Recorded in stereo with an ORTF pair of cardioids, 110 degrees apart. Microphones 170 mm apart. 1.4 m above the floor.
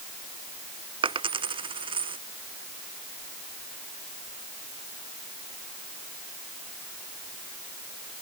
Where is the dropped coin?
30° right.